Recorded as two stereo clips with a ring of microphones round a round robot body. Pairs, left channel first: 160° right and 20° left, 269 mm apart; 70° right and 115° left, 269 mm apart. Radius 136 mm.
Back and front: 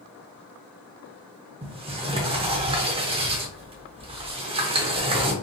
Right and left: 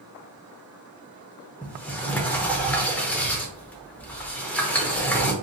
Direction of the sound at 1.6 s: 10° left.